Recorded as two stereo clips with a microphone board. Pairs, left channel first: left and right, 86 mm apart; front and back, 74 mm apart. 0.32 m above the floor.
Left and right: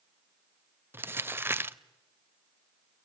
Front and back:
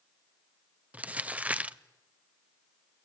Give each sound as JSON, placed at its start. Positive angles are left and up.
{"t": 0.9, "sound": "crumpling", "azimuth_deg": -125, "distance_m": 0.6}